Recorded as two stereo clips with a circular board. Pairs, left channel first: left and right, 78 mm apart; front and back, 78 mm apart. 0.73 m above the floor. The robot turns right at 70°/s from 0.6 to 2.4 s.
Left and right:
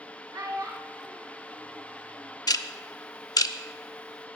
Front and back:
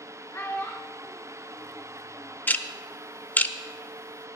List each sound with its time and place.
0.3 s a child speaking: 50° right, 1.3 m; by 2.4 s 70° left, 1.3 m
2.5 s ticking: 65° left, 0.5 m